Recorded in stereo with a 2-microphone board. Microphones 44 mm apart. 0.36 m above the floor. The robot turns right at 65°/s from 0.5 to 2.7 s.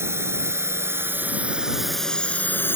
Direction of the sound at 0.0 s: 75° right (ahead or behind).